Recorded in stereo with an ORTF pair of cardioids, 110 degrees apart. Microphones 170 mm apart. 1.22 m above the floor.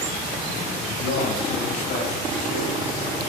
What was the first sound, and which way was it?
A man speaking, 70° left.